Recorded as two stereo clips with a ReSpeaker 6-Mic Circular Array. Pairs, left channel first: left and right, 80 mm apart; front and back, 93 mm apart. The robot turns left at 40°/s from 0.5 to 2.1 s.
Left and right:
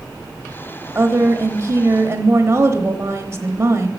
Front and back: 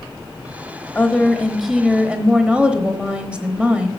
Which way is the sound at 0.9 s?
65° right.